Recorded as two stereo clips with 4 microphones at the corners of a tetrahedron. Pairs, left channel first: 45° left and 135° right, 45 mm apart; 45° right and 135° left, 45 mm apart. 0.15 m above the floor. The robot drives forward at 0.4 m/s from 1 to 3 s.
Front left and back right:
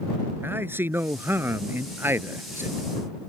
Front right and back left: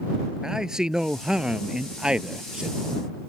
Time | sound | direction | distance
0.4 | a man speaking | 150° right | ?